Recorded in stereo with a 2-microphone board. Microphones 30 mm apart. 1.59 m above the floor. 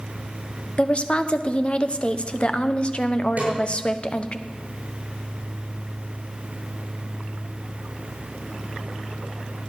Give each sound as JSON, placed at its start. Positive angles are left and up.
{"t": 0.8, "sound": "a woman speaking", "side_deg": 40, "distance_m": 1.0}
{"t": 3.4, "sound": "a snare drum", "side_deg": -55, "distance_m": 9.0}